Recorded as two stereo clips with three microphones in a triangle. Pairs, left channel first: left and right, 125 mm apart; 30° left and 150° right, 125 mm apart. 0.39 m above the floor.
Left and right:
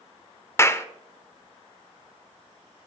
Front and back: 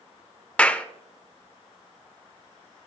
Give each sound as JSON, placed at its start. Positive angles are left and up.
{"t": 0.6, "sound": "a clap", "azimuth_deg": 90, "distance_m": 0.6}